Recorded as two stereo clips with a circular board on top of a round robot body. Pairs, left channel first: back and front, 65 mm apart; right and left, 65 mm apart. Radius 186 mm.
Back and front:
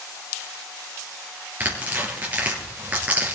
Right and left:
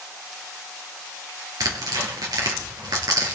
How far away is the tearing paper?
About 3.5 m.